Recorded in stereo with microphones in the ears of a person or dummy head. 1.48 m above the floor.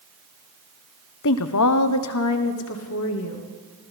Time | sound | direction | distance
1.2 | a woman speaking | 65° left (ahead or behind) | 0.7 m